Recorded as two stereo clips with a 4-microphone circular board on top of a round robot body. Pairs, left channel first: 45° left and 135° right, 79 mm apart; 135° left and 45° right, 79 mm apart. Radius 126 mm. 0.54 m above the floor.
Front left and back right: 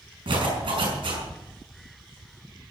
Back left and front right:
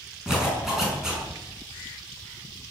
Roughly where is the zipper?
Behind right.